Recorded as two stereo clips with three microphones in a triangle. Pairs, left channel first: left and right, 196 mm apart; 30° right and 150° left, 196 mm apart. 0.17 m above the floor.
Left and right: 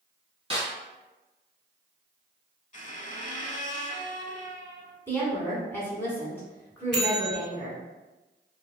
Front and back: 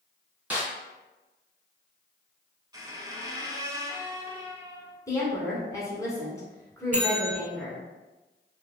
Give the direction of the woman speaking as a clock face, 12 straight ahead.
11 o'clock.